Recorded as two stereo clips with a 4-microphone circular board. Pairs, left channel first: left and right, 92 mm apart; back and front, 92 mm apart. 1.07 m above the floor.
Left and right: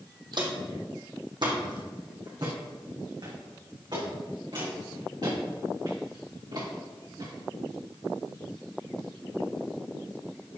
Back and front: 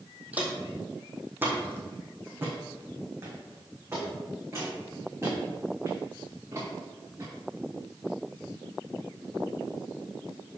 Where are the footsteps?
70° right, 2.0 m; by 7.3 s 55° right, 5.5 m.